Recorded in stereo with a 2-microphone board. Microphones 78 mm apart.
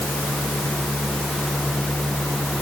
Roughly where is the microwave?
I don't hear a microwave.